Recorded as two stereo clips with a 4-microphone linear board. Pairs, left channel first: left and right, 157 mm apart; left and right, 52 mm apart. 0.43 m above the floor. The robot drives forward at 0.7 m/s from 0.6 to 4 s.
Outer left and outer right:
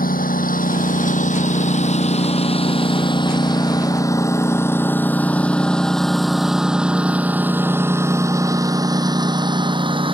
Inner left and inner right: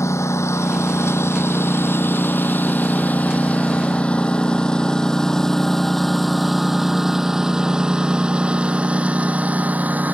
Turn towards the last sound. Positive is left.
turn(degrees=-35)  # may be behind; listen again after turning